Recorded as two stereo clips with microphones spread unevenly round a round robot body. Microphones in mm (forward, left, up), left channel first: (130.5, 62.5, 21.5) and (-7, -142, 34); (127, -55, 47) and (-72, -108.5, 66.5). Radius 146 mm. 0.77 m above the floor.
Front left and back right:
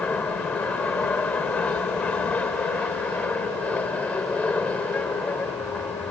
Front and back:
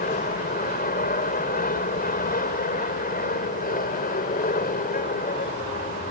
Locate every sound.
0.0 s an aircraft: 30° right